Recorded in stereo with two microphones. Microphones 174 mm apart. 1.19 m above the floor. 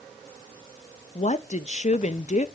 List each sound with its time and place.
1.1 s a woman speaking: 45° left (ahead or behind), 0.8 m